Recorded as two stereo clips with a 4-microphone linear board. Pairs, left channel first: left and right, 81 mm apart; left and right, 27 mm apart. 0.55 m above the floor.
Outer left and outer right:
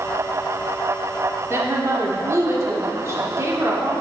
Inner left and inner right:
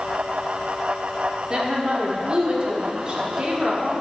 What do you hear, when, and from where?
1.5 s a woman speaking: 40° right (ahead or behind), 1.4 m